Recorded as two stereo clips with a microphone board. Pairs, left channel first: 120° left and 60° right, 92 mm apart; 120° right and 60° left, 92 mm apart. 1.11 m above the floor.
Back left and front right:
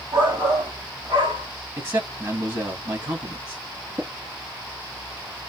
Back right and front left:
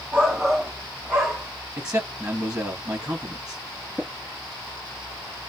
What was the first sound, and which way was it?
A shout, 20° right.